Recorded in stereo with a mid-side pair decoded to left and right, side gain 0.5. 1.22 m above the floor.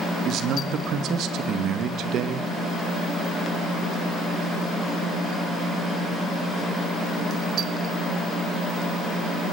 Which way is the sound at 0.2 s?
70° right.